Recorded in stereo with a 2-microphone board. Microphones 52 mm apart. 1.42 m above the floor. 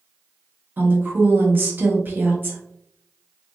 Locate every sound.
0.8 s a woman speaking: 40° right (ahead or behind), 1.0 m